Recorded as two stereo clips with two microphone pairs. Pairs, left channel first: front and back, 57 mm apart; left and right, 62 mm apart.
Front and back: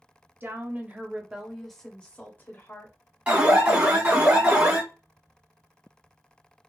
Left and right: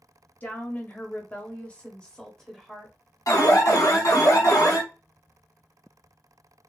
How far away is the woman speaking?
About 1.1 m.